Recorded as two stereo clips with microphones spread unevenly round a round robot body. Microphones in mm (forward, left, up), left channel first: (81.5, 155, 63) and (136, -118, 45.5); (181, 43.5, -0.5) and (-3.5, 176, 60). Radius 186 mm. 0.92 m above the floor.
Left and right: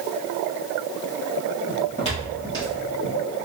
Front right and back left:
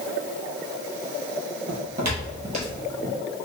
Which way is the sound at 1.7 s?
135° left.